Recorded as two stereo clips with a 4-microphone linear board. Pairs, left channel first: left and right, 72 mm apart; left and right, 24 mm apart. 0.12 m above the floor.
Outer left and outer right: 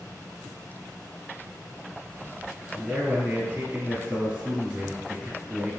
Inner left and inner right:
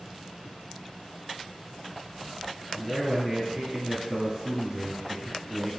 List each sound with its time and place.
2.7 s a man speaking: 20° right (ahead or behind), 1.6 m